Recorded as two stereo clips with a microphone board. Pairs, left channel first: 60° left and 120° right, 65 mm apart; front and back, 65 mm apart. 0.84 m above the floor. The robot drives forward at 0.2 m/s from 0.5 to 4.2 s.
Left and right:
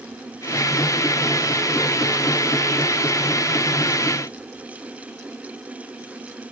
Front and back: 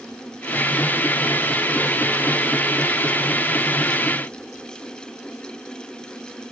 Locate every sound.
Only background noise.